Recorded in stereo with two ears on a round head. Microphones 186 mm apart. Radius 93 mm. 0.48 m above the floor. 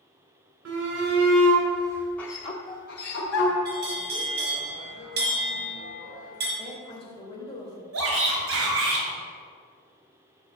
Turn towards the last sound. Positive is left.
turn(degrees=-70)  # may be behind; listen again after turning